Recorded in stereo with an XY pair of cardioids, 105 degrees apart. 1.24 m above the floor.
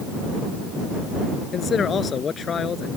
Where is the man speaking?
45° left.